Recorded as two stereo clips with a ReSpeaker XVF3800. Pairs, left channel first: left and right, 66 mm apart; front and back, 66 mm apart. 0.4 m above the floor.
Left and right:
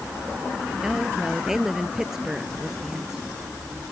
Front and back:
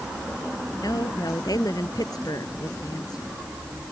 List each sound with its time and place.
0.8 s a woman speaking: 10° right